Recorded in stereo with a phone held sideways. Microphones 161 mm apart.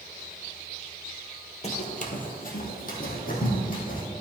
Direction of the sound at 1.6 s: 45° left (ahead or behind).